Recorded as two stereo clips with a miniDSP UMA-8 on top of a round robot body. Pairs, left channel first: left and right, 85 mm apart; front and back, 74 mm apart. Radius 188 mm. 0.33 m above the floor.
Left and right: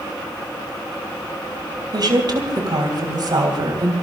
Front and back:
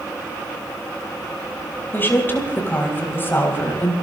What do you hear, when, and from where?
1.9 s a woman speaking: 60° right, 3.5 m